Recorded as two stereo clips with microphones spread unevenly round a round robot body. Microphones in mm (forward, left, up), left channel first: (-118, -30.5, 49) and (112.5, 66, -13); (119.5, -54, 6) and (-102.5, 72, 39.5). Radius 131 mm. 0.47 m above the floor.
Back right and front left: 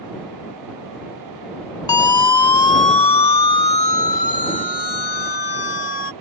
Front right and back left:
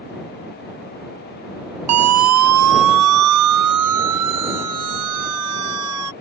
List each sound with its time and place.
1.9 s a siren: 125° left; by 6.1 s 160° left